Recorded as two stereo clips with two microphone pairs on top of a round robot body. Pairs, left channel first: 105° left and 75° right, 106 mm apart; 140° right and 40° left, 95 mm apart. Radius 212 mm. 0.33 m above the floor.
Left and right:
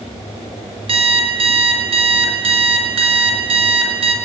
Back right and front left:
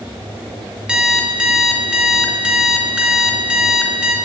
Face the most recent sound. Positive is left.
turn(degrees=-40)